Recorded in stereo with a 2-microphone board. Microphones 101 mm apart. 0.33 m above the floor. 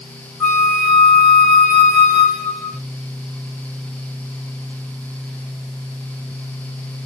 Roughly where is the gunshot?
I don't hear a gunshot.